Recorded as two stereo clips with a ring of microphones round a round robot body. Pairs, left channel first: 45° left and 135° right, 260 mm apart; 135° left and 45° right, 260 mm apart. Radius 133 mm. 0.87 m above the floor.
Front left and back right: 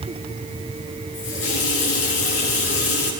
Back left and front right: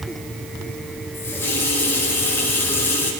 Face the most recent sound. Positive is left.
turn(degrees=55)